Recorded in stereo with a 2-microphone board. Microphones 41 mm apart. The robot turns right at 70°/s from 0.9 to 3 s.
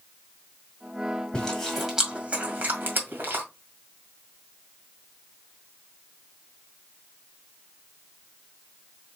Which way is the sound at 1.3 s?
25° left (ahead or behind).